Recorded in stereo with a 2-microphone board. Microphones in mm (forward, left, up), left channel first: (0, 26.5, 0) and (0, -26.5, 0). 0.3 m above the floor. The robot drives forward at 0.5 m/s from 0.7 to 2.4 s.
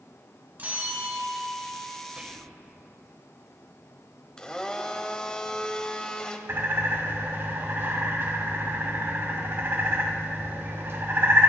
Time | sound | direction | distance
0.6 | a bell | 35° right (ahead or behind) | 1.9 m
2.2 | whispering | 25° right (ahead or behind) | 1.0 m
4.4 | a blender | 15° left (ahead or behind) | 0.9 m
6.5 | a bird | 50° right (ahead or behind) | 2 m